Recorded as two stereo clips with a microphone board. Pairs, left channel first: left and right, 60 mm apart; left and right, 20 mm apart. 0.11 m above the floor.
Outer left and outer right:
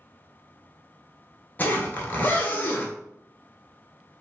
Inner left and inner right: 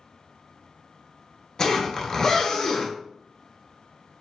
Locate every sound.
1.6 s a zipper: 30° left (ahead or behind), 0.8 m